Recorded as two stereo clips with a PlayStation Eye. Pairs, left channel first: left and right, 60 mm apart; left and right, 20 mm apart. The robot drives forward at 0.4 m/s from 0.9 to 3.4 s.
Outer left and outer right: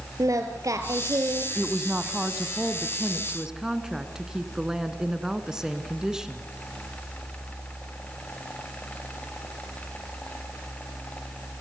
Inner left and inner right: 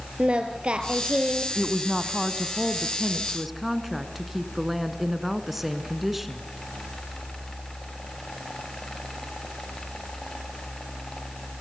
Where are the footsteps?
No footsteps in this recording.